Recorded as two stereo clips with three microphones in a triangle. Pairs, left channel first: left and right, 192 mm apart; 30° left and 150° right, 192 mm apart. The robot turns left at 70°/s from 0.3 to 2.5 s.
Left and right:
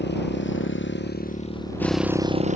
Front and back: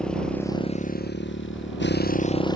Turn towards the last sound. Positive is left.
turn(degrees=-40)